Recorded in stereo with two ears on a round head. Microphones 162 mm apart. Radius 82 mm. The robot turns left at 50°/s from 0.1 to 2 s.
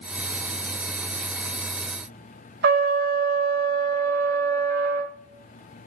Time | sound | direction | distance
2.6 | a trumpet | 55° right (ahead or behind) | 1.3 m